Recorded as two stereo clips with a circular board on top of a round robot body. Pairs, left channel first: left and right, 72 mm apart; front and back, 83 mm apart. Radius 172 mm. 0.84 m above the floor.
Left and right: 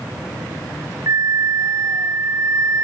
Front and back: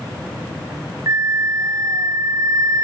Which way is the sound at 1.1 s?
135° right.